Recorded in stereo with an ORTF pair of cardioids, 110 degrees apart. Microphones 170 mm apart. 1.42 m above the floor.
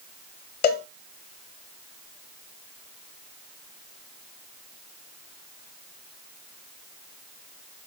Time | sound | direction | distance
0.6 | a cowbell | 65° left | 1.1 m